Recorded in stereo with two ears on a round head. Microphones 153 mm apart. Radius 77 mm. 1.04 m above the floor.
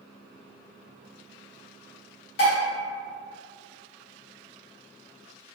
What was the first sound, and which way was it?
Dishes clattering, 75° left (ahead or behind).